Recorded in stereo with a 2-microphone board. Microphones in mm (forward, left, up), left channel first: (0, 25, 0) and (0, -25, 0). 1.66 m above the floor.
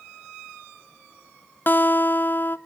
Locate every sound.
1.7 s a guitar: 40° left (ahead or behind), 0.8 m